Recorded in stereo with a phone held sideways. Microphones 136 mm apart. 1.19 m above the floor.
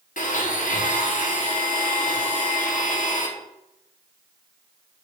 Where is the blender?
75° left (ahead or behind), 0.9 m.